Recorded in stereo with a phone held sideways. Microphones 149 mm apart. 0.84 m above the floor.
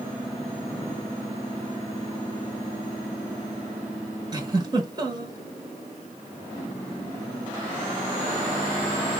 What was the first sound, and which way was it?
A giggle, 30° right (ahead or behind).